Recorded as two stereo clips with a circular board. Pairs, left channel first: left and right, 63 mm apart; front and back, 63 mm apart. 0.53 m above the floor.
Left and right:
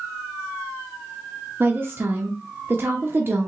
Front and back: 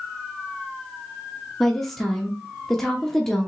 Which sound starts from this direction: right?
A woman speaking, at 1.6 s.